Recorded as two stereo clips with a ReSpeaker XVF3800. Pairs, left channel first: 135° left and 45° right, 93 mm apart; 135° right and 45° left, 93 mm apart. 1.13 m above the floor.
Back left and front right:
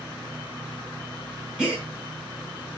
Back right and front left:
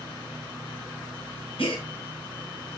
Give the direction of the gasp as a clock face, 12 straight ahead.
4 o'clock.